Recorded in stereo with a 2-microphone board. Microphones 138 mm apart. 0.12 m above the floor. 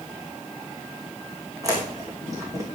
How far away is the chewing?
About 2.5 m.